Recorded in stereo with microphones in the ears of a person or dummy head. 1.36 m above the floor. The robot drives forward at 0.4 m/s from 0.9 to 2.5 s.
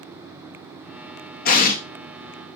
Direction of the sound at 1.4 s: 45° left (ahead or behind).